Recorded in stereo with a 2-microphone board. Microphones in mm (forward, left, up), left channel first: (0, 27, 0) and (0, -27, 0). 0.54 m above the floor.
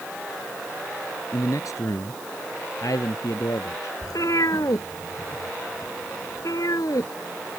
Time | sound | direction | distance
1.3 | a man speaking | 70° left (ahead or behind) | ?
4.0 | a cat meowing | 85° left | ?